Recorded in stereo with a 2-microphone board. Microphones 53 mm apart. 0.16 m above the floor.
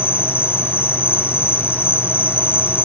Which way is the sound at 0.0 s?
45° left (ahead or behind).